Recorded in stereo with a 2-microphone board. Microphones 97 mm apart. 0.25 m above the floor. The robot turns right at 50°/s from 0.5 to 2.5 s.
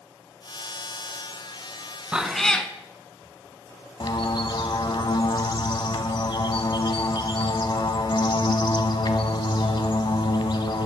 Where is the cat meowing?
10° right (ahead or behind), 0.6 m; by 2.7 s 10° left (ahead or behind), 0.6 m.